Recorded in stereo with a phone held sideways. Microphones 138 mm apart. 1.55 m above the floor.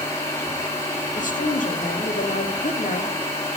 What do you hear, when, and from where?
0.0 s a machine running: 20° left (ahead or behind), 1.9 m
1.1 s a woman speaking: 70° left (ahead or behind), 0.9 m